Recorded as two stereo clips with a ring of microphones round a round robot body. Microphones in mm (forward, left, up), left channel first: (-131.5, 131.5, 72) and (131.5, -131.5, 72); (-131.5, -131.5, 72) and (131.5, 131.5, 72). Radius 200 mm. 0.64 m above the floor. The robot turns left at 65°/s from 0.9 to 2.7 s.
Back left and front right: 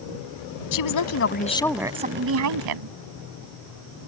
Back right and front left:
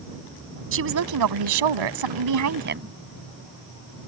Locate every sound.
0.7 s a woman speaking: 100° left; by 2.9 s 15° right